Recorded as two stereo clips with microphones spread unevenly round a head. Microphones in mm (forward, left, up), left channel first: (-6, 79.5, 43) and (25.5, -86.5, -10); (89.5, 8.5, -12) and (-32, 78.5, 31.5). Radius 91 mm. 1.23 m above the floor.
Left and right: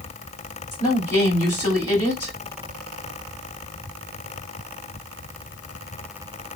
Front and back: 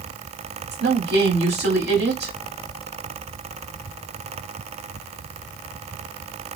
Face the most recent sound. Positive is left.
turn(degrees=175)